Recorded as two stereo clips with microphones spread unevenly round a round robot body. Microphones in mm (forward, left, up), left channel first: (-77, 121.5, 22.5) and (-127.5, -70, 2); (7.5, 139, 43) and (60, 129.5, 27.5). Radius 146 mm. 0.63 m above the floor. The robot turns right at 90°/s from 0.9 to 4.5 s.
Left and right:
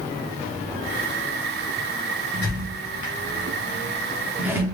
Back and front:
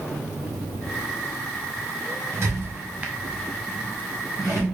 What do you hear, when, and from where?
2.3 s a squeak: 15° right, 1.1 m; by 4.6 s straight behind, 1.1 m